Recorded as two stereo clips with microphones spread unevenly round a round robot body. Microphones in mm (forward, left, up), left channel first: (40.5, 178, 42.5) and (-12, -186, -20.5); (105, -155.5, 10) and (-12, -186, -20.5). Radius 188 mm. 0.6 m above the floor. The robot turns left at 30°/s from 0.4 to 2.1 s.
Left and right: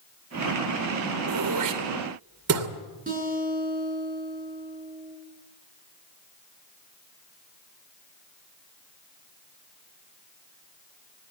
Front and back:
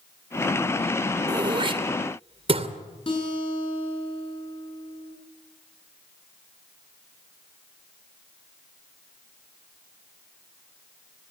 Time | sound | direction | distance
1.3 | throat clearing | 115° right | 2 m
3.1 | a guitar | 30° right | 9.5 m